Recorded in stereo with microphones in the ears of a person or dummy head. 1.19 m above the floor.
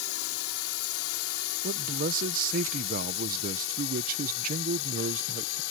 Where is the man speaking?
50° right (ahead or behind).